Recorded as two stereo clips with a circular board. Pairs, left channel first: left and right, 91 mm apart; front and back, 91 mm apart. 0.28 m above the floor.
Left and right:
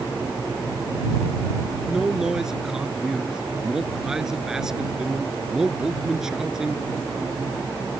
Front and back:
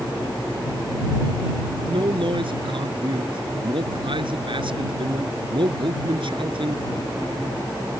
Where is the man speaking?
175° right.